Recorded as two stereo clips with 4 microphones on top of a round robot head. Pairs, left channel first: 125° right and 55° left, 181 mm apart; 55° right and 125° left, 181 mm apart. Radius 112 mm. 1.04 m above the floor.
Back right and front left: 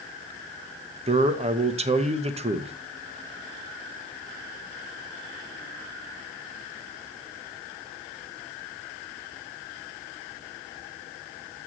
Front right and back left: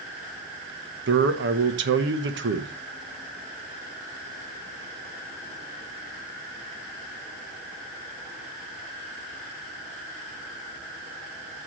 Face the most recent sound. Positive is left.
turn(degrees=110)